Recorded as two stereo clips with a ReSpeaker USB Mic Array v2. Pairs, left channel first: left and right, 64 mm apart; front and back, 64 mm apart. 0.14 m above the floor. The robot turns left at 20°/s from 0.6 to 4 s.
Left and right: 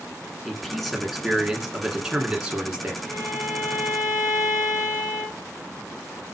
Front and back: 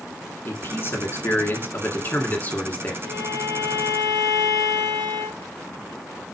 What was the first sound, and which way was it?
A man speaking, 5° left.